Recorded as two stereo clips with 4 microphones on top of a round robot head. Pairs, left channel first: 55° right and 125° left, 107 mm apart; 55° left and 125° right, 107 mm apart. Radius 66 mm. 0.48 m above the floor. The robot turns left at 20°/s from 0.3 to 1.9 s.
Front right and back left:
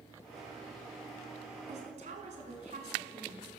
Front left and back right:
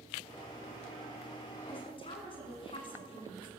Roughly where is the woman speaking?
Left.